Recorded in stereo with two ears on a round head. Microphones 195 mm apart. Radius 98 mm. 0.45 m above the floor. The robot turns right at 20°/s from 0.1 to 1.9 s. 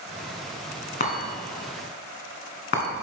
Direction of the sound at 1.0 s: 40° left (ahead or behind).